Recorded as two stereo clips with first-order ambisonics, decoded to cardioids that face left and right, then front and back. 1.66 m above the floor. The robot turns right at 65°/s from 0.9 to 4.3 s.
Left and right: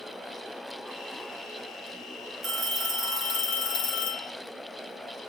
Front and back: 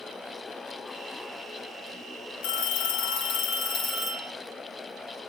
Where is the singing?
I don't hear singing.